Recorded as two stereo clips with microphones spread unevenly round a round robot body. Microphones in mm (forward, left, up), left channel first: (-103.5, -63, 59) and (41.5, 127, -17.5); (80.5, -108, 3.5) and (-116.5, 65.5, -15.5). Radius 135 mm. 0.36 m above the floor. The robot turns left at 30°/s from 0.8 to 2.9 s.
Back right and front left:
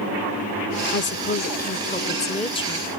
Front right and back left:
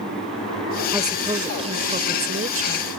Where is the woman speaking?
160° right; by 2.9 s 140° left.